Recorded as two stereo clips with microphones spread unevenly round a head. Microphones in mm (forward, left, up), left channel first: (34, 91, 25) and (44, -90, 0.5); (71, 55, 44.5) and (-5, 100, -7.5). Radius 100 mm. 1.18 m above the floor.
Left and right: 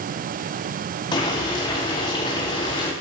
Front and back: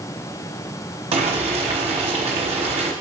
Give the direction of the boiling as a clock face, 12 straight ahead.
7 o'clock.